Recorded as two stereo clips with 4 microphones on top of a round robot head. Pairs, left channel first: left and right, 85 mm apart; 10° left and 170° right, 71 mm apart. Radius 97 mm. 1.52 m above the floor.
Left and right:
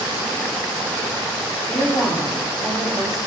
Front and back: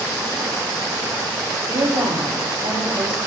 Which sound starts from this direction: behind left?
A woman speaking, at 1.7 s.